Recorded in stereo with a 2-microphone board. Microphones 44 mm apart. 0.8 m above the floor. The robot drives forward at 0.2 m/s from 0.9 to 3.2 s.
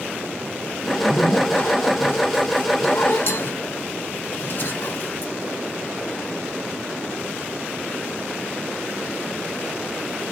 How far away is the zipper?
About 0.9 m.